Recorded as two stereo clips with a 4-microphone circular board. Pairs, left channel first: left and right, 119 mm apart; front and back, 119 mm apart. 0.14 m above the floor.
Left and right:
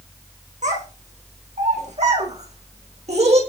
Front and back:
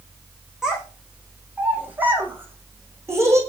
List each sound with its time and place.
0.6 s a child speaking: 95° right, 7 m; by 3.4 s 115° right, 6.5 m